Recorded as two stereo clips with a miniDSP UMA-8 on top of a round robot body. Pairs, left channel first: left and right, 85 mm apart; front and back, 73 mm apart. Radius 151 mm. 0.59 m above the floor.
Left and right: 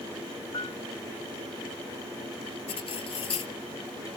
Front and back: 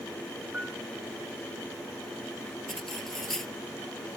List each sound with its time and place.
0.5 s a piano: 110° left
2.7 s cutlery clinking: 85° left